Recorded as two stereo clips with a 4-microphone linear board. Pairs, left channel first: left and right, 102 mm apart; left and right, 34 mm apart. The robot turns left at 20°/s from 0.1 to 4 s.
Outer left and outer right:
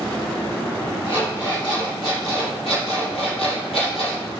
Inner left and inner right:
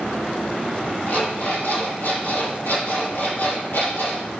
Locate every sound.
1.1 s an alarm clock: 130° left, 4 m; by 4.3 s 70° left, 4 m